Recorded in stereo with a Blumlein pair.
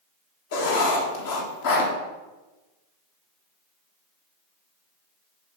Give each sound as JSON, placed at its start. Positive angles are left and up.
{"t": 0.5, "sound": "writing", "azimuth_deg": 55, "distance_m": 1.9}